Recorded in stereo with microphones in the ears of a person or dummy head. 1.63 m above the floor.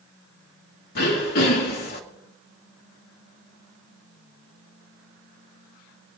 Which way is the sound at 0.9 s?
50° left (ahead or behind).